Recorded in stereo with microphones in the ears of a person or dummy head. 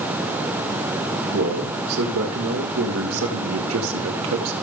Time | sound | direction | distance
1.3 | a man speaking | 80° right | 3 m